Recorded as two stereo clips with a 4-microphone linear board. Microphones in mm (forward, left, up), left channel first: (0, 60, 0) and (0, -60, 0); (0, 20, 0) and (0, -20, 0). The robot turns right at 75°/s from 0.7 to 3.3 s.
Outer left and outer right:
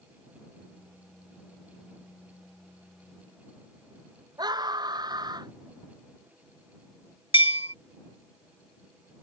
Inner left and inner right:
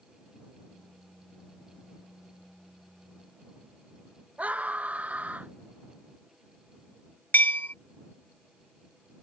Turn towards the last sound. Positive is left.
turn(degrees=50)  # may be behind; listen again after turning